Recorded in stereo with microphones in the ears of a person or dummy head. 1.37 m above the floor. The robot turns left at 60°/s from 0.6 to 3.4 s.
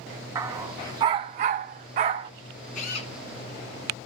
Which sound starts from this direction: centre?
A dog barking, at 0.3 s.